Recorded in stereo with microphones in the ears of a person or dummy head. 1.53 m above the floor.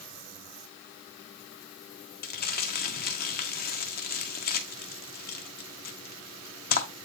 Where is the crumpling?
50° left (ahead or behind), 1.1 m.